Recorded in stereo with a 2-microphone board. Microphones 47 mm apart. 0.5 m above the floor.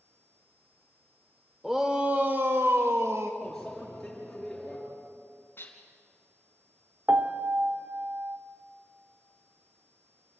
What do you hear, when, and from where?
1.6 s a shout: 5° right (ahead or behind), 1.3 m; by 3.3 s 65° right (ahead or behind), 2 m
3.4 s a microwave: 5° left (ahead or behind), 6.5 m
5.6 s dishes clattering: 45° left (ahead or behind), 3.5 m
7.1 s a piano: 40° right (ahead or behind), 1.0 m